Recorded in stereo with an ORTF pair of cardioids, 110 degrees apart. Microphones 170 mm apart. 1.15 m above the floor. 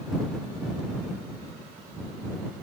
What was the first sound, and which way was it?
Only background noise.